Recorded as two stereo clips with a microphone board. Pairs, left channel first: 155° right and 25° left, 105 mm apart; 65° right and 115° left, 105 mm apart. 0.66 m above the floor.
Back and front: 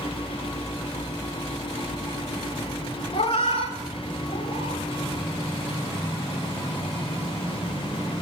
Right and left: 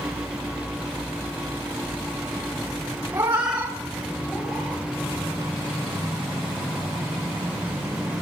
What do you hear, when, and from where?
3.1 s a cat meowing: straight behind, 1.3 m; by 4.8 s 150° right, 3 m